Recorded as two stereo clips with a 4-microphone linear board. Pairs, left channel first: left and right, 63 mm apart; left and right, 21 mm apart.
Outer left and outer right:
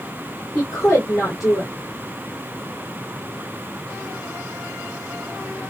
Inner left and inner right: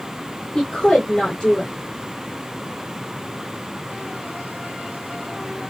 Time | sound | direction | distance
0.6 | a woman speaking | 60° left (ahead or behind) | 2.5 m